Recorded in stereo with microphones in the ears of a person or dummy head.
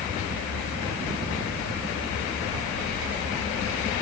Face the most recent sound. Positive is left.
No sound to turn to.